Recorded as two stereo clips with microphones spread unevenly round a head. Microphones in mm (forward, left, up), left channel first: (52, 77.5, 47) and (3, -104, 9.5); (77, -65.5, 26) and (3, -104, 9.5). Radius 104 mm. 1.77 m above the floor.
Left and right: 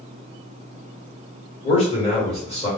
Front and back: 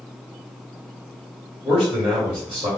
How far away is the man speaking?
About 1.7 m.